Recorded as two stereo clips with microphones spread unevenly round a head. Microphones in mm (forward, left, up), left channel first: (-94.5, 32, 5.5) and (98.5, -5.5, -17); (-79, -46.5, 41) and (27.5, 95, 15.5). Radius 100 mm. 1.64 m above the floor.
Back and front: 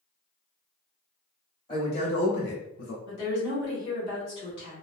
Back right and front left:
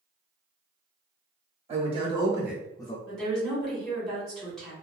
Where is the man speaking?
110° left, 1.5 m; by 3.0 s straight behind, 0.6 m.